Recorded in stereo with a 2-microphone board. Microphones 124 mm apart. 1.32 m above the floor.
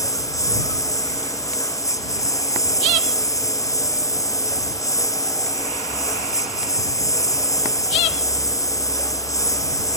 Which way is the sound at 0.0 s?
25° left (ahead or behind).